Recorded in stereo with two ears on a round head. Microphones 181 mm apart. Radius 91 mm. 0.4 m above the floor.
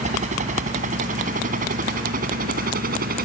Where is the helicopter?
40° right (ahead or behind); by 3.3 s 50° right (ahead or behind).